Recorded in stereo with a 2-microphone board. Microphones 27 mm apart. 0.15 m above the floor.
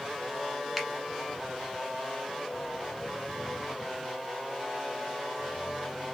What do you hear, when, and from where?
0.8 s a finger snap: 5° right (ahead or behind), 1.1 m